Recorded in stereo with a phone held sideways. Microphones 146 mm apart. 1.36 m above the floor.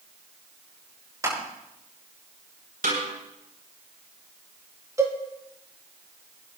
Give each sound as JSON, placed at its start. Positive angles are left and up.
{"t": 1.2, "sound": "crushing", "side_deg": -20, "distance_m": 8.0}
{"t": 2.8, "sound": "a snare drum", "side_deg": -80, "distance_m": 8.0}
{"t": 5.0, "sound": "a cowbell", "side_deg": -20, "distance_m": 3.0}